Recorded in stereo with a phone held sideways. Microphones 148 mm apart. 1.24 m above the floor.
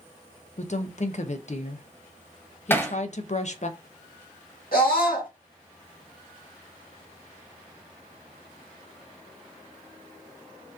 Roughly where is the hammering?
Centre.